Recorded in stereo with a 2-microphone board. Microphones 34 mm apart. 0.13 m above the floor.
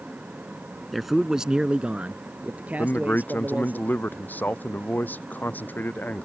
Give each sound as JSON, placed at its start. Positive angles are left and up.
{"t": 0.9, "sound": "a man speaking", "side_deg": 0}
{"t": 2.8, "sound": "a man speaking", "side_deg": 60}